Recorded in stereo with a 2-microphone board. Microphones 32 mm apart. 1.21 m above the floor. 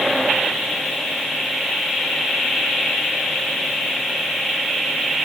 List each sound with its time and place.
Only background noise.